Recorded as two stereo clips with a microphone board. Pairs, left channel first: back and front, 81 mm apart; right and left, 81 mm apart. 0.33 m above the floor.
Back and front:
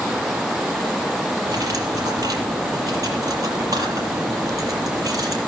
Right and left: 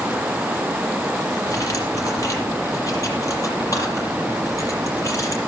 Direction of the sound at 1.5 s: 40° right.